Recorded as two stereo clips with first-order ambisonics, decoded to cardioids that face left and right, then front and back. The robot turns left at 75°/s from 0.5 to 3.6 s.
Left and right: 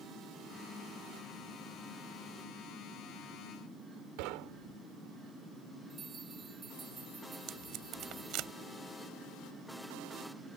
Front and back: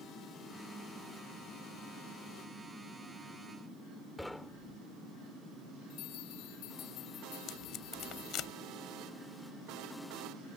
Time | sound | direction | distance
4.2 | knocking | 90° right | ?
5.9 | a bell | 15° right | ?
7.5 | tape being pulled | 50° right | ?